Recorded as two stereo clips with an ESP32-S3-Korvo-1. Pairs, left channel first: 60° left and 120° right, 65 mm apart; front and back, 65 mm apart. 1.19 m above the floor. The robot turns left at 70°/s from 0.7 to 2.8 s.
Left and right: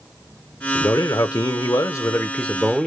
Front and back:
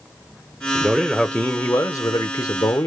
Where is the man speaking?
110° left, 0.5 m; by 2.9 s 35° right, 0.5 m.